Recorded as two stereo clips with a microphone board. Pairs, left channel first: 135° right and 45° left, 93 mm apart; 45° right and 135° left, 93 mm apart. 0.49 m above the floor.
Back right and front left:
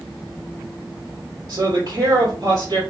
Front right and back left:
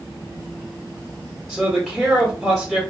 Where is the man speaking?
40° left, 1.3 m.